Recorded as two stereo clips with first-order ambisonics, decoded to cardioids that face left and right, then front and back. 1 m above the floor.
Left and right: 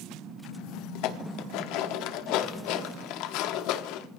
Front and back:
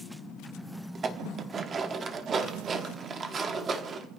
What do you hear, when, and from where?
0.9 s dishes clattering: 115° left, 1.2 m